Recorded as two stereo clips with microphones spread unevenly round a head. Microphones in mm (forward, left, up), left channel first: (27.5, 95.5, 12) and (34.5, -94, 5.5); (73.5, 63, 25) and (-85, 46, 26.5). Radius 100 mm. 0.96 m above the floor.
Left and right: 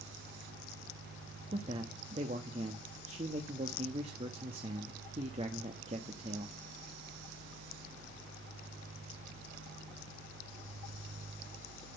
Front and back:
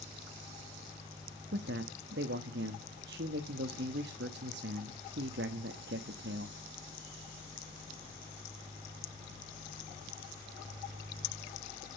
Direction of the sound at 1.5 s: 150° right.